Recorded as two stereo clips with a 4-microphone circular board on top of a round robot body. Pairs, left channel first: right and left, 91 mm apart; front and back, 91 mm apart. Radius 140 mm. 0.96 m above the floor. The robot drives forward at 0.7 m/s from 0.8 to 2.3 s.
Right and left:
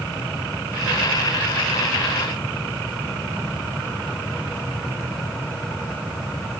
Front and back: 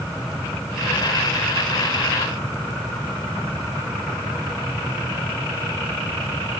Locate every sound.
Only background noise.